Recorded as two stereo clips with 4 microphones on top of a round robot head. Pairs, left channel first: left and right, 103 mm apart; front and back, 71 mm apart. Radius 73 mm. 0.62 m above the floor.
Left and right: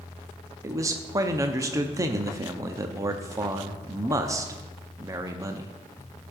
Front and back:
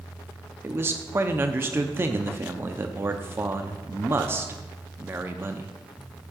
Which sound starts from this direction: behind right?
A man speaking, at 0.6 s.